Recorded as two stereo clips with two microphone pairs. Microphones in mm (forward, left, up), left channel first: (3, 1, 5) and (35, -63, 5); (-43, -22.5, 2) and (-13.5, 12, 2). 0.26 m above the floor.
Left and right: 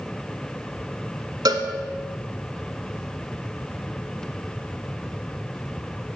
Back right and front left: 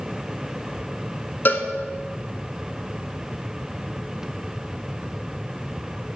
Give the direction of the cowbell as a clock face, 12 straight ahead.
3 o'clock.